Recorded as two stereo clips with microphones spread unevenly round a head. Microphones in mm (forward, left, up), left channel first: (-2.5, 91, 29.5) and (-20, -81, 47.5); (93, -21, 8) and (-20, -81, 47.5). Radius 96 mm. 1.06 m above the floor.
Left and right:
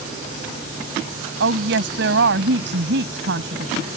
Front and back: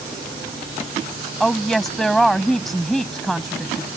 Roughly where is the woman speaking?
Ahead right.